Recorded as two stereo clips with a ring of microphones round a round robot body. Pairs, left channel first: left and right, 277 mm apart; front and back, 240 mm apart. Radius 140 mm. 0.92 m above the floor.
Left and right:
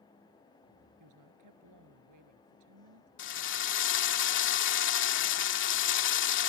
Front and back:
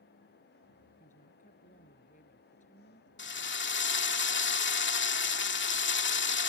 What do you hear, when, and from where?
1.0 s a woman speaking: 65° right
3.2 s a drill: 40° left